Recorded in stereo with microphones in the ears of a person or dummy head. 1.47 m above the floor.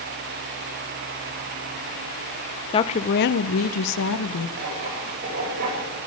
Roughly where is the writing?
Right.